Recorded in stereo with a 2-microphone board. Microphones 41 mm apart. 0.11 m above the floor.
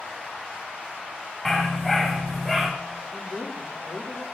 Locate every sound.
1.4 s a dog barking: centre (ahead or behind), 4 m; by 2.7 s 10° right (ahead or behind), 4.5 m
3.1 s a woman speaking: 20° right (ahead or behind), 5 m